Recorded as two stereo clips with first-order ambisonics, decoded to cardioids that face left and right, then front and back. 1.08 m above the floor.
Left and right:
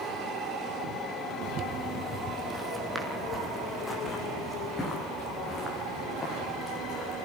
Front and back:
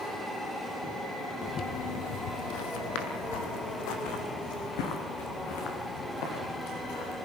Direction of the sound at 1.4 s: 55° right.